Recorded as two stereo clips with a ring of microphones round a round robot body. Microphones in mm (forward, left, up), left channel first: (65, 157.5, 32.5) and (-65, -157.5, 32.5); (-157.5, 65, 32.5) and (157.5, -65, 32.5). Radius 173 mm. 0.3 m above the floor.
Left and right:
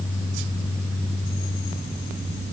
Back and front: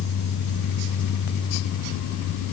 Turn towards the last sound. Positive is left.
No sound to turn to.